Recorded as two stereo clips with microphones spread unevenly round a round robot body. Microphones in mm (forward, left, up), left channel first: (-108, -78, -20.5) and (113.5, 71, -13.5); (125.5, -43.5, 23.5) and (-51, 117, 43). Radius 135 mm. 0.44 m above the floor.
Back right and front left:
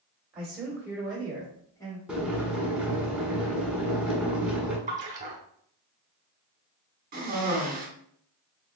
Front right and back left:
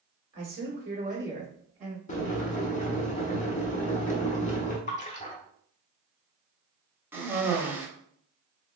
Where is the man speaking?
115° left, 1.6 m; by 2.0 s 165° left, 1.3 m.